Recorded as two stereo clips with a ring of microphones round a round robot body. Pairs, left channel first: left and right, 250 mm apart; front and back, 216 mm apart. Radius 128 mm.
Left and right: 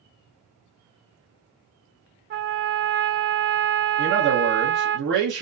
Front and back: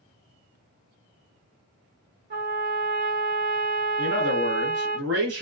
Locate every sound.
2.3 s a trumpet: 135° right, 0.5 m
4.0 s a man speaking: 135° right, 1.1 m